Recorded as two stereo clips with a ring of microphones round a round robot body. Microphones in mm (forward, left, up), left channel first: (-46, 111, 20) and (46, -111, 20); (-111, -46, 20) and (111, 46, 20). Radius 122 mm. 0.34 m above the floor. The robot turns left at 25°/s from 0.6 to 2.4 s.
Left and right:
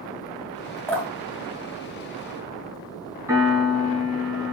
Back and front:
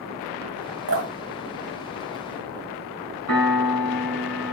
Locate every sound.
0.9 s dripping: 35° left, 2.5 m; by 2.8 s 5° right, 2.5 m
3.3 s a piano: 10° left, 4 m